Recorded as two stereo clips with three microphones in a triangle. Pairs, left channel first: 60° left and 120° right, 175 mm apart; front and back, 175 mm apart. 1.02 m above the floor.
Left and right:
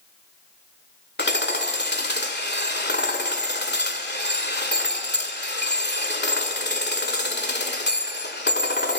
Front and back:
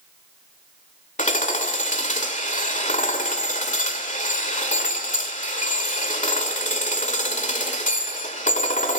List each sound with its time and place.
1.2 s hammering: 45° left, 2.0 m